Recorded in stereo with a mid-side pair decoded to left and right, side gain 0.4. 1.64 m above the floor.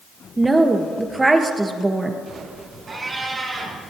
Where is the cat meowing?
40° right, 5.5 m.